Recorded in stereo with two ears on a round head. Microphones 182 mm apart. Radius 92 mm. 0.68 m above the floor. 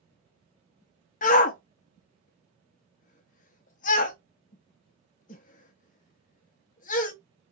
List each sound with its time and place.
1.2 s a shout: 40° left (ahead or behind), 0.6 m